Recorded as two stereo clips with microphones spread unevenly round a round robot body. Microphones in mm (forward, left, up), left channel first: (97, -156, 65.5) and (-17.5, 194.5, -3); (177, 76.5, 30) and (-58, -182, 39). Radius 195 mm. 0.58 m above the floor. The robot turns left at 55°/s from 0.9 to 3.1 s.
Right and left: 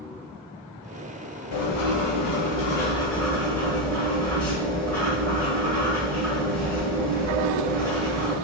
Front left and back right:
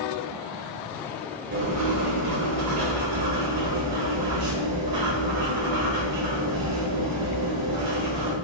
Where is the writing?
75° right, 2.0 m; by 8.4 s 160° right, 2.0 m.